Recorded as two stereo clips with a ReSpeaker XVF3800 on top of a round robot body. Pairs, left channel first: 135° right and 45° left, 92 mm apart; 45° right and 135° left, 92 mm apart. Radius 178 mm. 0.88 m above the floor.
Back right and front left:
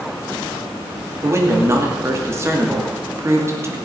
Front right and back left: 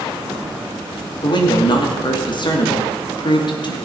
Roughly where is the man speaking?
Ahead.